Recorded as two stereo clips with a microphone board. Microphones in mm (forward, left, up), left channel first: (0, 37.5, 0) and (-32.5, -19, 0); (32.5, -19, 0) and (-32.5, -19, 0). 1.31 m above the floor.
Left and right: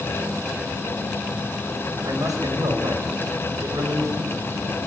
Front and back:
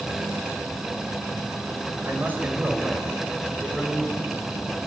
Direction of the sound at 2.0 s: 125° right.